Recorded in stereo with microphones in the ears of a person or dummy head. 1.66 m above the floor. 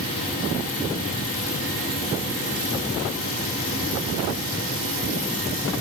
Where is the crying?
I don't hear crying.